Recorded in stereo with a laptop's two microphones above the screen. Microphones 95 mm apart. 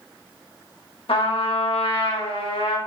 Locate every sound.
1.1 s a trumpet: 75° left (ahead or behind), 1.3 m